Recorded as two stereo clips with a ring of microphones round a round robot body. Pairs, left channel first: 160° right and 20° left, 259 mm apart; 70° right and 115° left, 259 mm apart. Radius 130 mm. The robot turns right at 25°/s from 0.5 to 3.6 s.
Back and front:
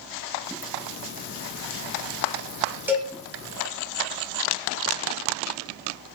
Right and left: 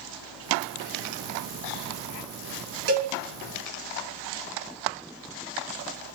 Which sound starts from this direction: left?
A cowbell, at 2.9 s.